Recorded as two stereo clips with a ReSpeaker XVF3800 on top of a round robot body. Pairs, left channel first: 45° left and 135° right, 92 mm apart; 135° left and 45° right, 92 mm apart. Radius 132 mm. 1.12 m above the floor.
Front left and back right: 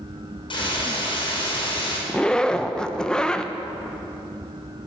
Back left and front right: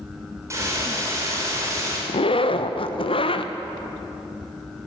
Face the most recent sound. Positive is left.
turn(degrees=125)